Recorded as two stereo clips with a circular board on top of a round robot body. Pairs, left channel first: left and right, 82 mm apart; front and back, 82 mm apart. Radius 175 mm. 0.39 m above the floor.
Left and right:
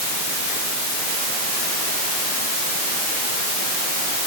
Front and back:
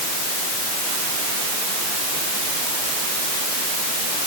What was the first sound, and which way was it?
Only background noise.